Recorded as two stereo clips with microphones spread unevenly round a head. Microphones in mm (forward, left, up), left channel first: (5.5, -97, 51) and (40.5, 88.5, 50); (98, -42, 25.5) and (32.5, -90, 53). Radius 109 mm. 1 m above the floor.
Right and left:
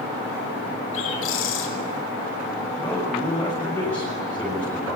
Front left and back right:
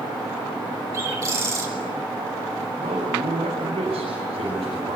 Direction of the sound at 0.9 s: 90° right.